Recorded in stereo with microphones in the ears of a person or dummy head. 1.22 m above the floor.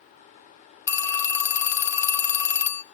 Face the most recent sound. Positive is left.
turn(degrees=15)  # may be behind; listen again after turning